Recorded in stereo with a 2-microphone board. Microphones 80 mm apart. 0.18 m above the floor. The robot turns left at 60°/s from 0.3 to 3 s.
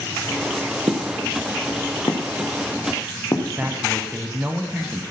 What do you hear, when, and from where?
0.9 s footsteps: 55° right (ahead or behind), 1.9 m; by 3.7 s 45° left (ahead or behind), 3.5 m
3.6 s a man speaking: 20° right (ahead or behind), 1.1 m